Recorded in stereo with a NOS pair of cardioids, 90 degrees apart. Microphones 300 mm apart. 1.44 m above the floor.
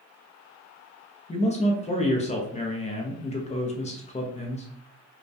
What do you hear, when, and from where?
1.3 s a man speaking: 25° left, 0.5 m